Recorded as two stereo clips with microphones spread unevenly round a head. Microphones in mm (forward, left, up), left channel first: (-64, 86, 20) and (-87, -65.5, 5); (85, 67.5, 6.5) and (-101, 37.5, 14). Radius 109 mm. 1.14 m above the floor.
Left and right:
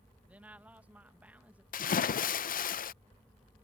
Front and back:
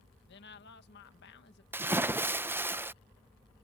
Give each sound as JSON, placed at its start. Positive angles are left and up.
{"t": 0.3, "sound": "a woman speaking", "azimuth_deg": -20}
{"t": 1.7, "sound": "a splash", "azimuth_deg": 110}